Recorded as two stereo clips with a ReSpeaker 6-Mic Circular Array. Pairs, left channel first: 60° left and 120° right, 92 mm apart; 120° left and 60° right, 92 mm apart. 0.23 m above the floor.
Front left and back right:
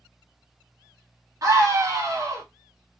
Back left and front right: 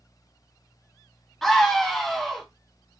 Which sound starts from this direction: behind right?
A scream, at 1.4 s.